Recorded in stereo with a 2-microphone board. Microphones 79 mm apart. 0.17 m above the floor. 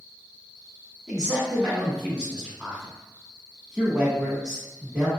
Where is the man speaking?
10° right (ahead or behind), 1.0 m.